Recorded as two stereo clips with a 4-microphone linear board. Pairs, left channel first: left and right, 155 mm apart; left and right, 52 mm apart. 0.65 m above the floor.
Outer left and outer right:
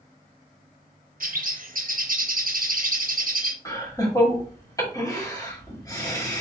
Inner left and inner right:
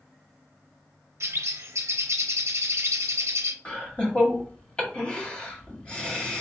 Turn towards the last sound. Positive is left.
turn(degrees=20)  # may be behind; listen again after turning